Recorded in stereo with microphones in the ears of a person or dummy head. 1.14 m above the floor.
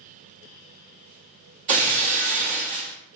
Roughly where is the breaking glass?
Right.